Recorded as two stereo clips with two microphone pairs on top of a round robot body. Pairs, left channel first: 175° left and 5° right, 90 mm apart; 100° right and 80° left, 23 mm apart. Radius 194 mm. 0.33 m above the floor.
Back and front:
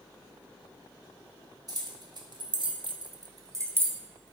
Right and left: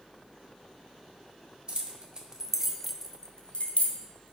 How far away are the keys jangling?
About 1.4 m.